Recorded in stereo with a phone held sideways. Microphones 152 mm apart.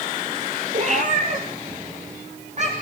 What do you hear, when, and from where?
0.7 s a cat meowing: 50° right (ahead or behind), 3.5 m